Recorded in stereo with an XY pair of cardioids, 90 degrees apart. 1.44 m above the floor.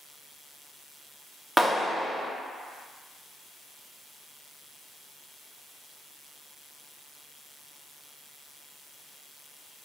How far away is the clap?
About 0.6 m.